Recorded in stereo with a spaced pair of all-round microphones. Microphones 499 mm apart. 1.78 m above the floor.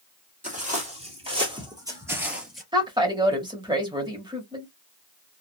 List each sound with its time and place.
0.4 s footsteps: 15° right (ahead or behind), 3 m; by 2.6 s centre (ahead or behind), 1.8 m
2.7 s a woman speaking: 10° right (ahead or behind), 1.7 m